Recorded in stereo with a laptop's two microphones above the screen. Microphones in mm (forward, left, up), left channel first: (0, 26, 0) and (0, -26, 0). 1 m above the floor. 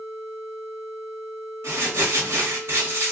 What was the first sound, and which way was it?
Crumpling, 60° right (ahead or behind).